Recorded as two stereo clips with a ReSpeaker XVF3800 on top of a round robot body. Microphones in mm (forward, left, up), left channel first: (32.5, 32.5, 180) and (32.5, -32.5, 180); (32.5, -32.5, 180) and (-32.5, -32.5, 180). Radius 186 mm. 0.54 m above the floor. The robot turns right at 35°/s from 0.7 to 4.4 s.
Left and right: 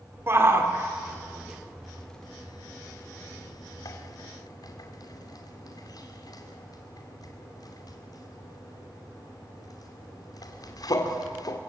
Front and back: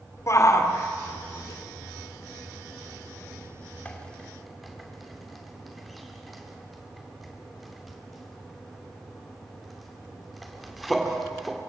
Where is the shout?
40° right, 2.5 m; by 11.6 s 90° left, 2.5 m.